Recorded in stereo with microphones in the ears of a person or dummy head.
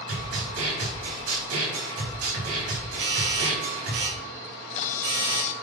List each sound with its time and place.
0.1 s a snare drum: 90° right, 5 m
3.0 s a doorbell: 70° right (ahead or behind), 4.5 m
4.5 s a camera shutter: 45° left (ahead or behind), 0.9 m